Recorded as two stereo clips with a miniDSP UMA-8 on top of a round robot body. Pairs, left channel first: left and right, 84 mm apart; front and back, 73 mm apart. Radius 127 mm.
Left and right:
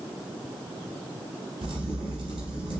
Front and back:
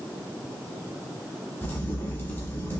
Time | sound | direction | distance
1.6 | a crack | 60° right | 1.0 m